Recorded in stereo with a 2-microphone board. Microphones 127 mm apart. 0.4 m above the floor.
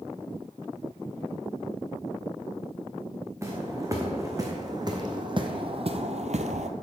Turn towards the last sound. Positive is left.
turn(degrees=-60)  # may be behind; listen again after turning